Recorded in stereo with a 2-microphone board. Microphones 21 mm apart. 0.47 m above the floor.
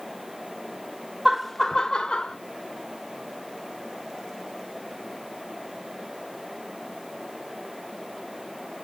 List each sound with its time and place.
1.2 s laughter: 15° right (ahead or behind), 0.7 m; by 2.4 s 45° left (ahead or behind), 1.2 m